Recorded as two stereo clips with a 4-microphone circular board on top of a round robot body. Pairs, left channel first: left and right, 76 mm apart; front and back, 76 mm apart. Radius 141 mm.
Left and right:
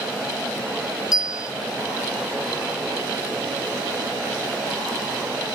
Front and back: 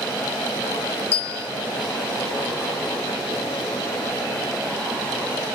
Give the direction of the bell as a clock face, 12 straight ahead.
10 o'clock.